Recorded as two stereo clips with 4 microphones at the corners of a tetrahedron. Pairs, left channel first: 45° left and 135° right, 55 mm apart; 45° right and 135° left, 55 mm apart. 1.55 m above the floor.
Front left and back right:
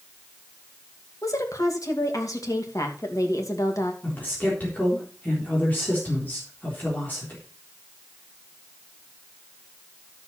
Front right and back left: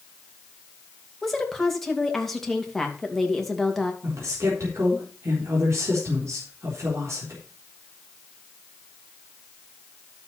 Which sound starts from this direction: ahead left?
A woman speaking, at 1.2 s.